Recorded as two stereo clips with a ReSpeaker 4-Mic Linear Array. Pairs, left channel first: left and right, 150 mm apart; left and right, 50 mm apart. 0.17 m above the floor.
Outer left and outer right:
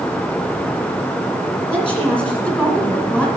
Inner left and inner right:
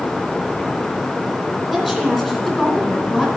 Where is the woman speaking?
15° right (ahead or behind), 1.9 m.